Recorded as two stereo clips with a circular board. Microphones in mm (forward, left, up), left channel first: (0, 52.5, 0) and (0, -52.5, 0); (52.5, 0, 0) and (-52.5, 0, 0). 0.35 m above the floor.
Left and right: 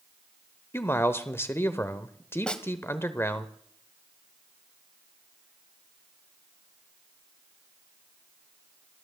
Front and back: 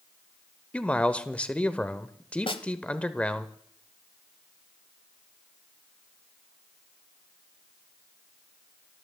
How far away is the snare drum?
About 1.0 m.